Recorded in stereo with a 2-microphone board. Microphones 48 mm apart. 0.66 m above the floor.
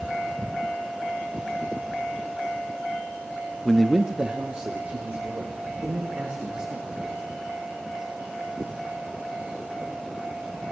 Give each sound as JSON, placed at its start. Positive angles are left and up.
{"t": 3.6, "sound": "a man speaking", "side_deg": 20, "distance_m": 0.6}